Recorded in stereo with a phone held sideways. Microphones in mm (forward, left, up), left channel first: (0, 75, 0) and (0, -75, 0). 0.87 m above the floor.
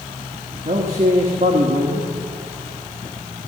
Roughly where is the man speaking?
Right.